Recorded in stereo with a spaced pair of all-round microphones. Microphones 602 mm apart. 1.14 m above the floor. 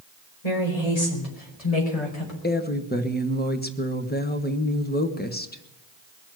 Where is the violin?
No violin in this recording.